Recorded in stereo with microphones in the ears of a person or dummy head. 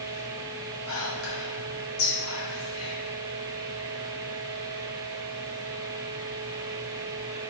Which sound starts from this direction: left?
Whispering, at 0.9 s.